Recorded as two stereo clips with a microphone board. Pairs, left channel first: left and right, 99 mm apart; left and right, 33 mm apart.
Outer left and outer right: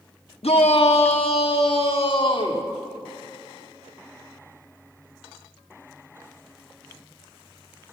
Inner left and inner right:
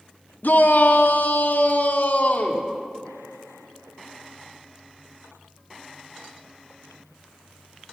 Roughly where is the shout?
Left.